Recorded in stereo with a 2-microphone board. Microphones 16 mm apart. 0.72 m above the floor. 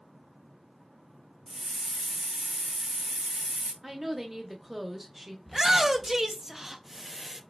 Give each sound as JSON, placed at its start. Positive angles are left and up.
{"t": 1.5, "sound": "a hiss", "side_deg": -80, "distance_m": 0.7}
{"t": 3.8, "sound": "a woman speaking", "side_deg": -15, "distance_m": 0.9}
{"t": 5.5, "sound": "a shout", "side_deg": -30, "distance_m": 0.5}